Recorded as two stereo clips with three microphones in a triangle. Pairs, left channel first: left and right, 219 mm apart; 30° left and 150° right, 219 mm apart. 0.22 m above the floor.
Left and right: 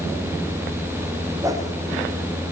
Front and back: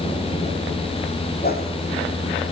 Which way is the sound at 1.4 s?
15° right.